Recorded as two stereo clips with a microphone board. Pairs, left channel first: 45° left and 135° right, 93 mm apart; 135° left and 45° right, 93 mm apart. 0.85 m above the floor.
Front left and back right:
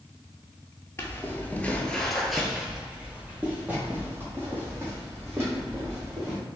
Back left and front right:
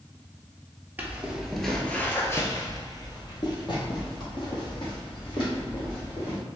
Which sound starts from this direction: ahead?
Footsteps, at 1.0 s.